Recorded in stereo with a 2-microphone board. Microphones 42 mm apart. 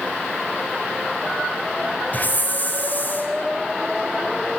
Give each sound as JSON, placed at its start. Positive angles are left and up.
{"t": 2.1, "sound": "a hiss", "side_deg": 40, "distance_m": 4.0}